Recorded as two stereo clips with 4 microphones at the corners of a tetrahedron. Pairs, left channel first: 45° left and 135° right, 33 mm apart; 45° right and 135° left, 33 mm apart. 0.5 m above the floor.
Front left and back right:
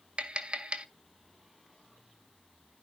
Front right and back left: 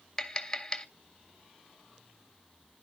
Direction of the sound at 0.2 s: 115° right.